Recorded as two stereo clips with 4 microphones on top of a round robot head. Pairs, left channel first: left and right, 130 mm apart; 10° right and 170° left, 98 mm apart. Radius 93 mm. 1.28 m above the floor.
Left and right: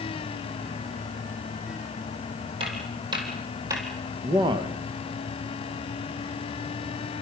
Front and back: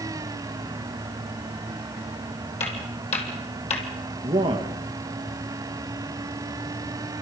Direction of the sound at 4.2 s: 145° right.